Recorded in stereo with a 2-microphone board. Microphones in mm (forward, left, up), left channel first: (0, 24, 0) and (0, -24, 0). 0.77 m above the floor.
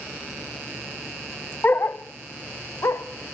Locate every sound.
1.6 s a dog barking: 40° left (ahead or behind), 0.5 m; by 3.0 s 70° left (ahead or behind), 1.4 m